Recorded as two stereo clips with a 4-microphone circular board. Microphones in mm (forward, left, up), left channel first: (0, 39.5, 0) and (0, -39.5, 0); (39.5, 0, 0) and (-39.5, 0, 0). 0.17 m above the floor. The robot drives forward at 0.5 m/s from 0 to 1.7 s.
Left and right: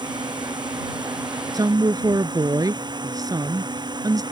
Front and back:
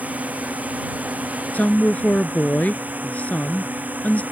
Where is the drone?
110° right.